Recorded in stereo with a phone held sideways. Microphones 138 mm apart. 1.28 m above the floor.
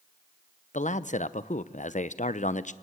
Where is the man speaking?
65° left (ahead or behind), 0.8 m.